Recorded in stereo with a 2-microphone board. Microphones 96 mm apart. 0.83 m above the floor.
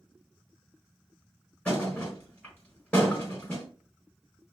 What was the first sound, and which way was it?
A thud, 15° left (ahead or behind).